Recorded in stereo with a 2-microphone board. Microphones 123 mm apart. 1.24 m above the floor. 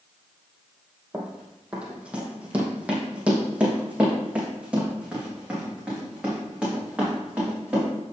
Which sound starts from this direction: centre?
Running footsteps, at 1.1 s.